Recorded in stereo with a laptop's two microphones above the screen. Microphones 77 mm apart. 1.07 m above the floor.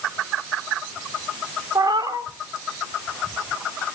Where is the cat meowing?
65° right (ahead or behind), 1.2 m.